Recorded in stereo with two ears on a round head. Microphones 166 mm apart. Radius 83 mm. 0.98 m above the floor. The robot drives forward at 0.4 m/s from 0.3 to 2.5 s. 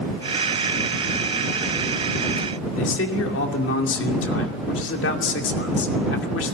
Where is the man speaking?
75° left (ahead or behind), 2.5 m.